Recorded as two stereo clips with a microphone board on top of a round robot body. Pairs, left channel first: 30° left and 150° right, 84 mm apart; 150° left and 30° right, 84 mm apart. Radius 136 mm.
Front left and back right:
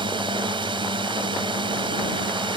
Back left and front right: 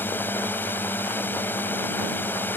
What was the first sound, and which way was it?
A drone, 145° right.